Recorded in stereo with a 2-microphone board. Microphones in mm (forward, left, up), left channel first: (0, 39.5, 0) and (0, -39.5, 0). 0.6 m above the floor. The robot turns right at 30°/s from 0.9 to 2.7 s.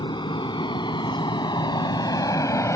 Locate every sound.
0.0 s an aircraft: 75° left (ahead or behind); by 2.8 s 40° left (ahead or behind)